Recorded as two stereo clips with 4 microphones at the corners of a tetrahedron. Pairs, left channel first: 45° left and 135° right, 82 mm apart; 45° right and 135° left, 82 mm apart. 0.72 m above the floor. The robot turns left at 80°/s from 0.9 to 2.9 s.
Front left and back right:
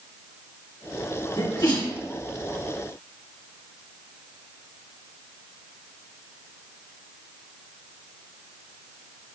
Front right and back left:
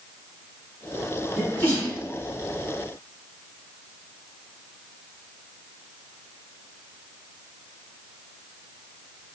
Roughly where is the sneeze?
Ahead left.